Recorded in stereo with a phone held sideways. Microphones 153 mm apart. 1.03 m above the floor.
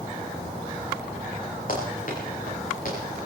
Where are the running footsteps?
65° left (ahead or behind), 7.5 m; by 3.0 s 60° left (ahead or behind), 8 m.